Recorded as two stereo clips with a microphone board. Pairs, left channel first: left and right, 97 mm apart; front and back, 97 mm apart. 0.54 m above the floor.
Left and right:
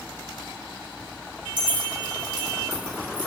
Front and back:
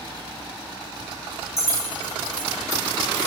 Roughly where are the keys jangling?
Ahead right.